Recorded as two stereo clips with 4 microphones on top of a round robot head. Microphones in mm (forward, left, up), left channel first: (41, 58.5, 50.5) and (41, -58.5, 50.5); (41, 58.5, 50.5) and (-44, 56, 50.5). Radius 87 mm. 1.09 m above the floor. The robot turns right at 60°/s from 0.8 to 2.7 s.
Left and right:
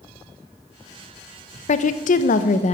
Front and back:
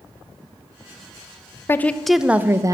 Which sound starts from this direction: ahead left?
A woman speaking, at 1.7 s.